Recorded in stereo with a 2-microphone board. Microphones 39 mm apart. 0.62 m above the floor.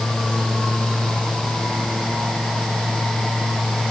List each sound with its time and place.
Only background noise.